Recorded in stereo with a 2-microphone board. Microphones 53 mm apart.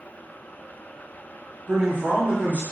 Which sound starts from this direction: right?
A man speaking, at 1.7 s.